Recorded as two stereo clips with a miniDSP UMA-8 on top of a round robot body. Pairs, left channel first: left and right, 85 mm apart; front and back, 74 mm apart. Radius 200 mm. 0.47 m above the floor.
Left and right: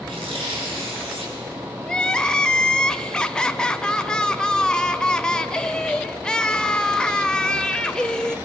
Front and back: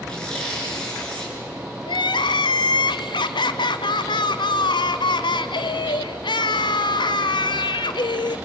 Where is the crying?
10° left, 0.9 m.